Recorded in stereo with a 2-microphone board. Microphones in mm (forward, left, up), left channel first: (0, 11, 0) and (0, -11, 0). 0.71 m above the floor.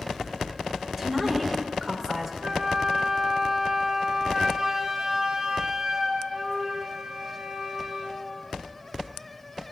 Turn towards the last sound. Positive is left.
turn(degrees=-45)  # may be behind; listen again after turning